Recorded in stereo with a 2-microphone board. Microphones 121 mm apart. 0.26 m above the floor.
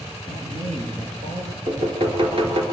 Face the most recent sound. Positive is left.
turn(degrees=-50)  # may be behind; listen again after turning